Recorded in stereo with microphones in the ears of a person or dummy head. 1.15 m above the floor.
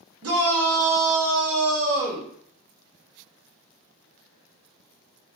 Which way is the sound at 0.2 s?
75° right (ahead or behind).